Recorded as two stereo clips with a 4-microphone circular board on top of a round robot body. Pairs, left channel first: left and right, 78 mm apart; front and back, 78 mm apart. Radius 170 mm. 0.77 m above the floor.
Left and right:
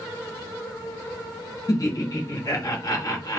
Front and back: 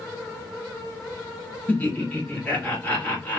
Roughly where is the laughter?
Left.